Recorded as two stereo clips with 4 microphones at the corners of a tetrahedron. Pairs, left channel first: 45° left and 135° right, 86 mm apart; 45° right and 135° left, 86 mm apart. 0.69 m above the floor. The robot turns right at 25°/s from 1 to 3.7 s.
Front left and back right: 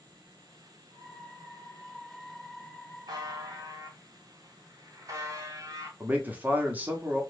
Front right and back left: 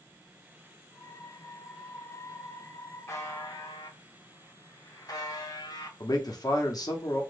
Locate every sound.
3.1 s a buzzer: 100° right, 1.0 m; by 5.9 s 85° right, 1.0 m
6.0 s a man speaking: 65° right, 1.0 m